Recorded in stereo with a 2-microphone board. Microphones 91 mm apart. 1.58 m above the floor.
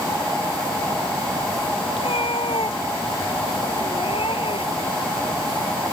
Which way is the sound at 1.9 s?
85° left.